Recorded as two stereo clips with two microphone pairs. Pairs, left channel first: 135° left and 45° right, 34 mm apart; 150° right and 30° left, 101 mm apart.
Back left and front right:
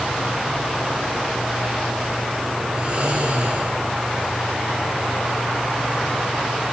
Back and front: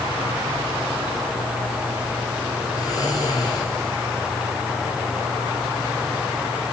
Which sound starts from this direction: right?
Snoring, at 2.8 s.